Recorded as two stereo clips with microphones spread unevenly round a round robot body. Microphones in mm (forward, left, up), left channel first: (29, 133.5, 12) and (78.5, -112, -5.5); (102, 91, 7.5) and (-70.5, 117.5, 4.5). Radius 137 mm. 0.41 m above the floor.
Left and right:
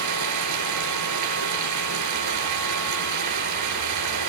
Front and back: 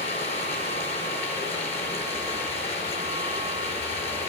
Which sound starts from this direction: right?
Running water, at 0.0 s.